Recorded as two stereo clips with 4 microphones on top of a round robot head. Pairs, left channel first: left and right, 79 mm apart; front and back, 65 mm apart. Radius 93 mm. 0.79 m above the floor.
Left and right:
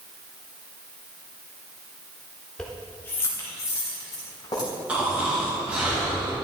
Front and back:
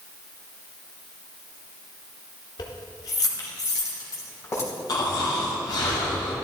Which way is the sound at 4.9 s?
15° right.